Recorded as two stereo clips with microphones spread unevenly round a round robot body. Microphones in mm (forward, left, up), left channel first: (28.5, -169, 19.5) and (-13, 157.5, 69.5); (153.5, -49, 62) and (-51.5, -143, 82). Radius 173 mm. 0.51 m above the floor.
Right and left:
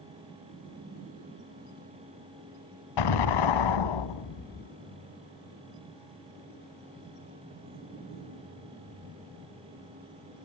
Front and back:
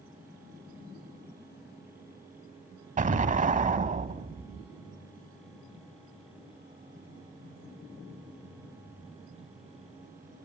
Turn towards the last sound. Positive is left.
turn(degrees=-100)